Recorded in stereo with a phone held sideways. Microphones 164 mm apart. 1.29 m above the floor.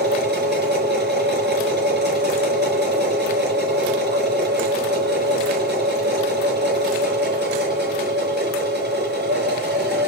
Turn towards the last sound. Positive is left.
turn(degrees=-75)  # may be behind; listen again after turning